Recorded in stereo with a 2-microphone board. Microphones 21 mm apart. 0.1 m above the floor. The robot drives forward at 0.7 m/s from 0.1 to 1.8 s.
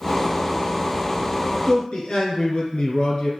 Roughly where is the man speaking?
Left.